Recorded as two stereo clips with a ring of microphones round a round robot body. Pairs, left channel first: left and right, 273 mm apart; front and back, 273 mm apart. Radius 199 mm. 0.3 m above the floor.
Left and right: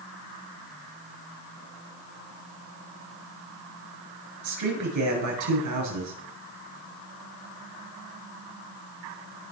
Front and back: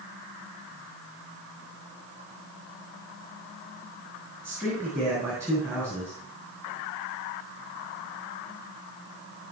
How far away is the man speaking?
About 6 m.